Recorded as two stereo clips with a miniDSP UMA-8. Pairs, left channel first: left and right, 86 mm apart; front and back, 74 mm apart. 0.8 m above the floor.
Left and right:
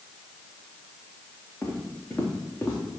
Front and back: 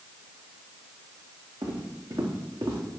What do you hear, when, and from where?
1.6 s footsteps: 155° left, 4 m